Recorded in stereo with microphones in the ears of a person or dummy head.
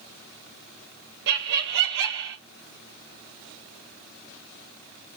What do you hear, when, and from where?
1.3 s laughter: 60° right (ahead or behind), 0.8 m